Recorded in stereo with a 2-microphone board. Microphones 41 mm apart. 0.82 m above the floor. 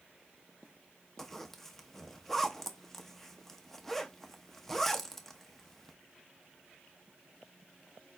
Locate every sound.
1.2 s a zipper: 10° left (ahead or behind), 0.7 m